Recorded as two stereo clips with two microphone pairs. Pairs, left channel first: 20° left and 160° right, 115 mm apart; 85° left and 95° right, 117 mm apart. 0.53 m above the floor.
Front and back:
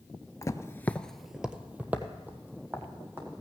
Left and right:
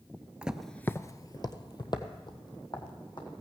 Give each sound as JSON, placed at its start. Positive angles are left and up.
{"t": 0.4, "sound": "footsteps", "azimuth_deg": -15, "distance_m": 0.6}